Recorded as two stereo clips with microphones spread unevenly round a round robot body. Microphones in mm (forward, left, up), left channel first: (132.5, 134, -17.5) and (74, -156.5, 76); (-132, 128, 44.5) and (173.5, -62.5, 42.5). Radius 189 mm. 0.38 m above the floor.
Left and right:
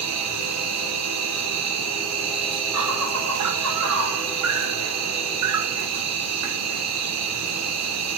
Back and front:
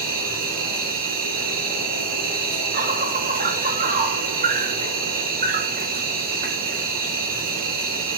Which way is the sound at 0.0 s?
80° right.